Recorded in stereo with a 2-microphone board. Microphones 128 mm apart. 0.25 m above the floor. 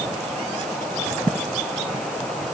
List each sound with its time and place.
Only background noise.